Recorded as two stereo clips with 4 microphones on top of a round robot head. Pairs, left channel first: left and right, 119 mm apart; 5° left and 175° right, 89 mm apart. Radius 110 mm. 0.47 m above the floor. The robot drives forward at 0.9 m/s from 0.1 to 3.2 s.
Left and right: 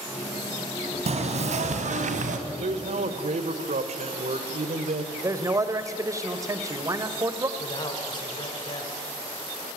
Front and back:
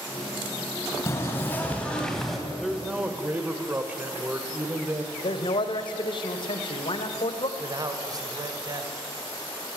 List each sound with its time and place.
1.1 s knocking: 65° right, 3 m; by 2.4 s 90° right, 2.5 m
2.5 s a man speaking: 85° right, 1.9 m; by 5.0 s 105° right, 1.9 m
5.2 s a man speaking: 30° right, 2.0 m
7.6 s a man speaking: 140° left, 2.5 m